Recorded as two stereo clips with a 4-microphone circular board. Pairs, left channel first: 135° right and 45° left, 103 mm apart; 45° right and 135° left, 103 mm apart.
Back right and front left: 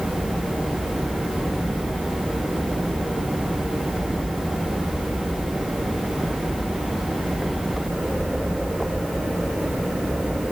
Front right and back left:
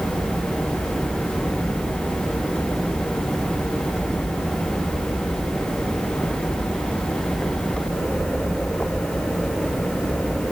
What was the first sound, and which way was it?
Only background noise.